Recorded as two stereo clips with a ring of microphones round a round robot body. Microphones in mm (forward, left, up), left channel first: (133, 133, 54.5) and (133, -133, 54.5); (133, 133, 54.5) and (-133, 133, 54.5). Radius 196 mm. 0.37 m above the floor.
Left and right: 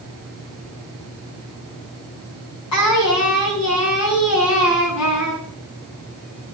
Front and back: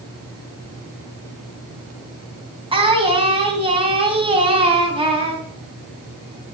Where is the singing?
110° left, 3.5 m.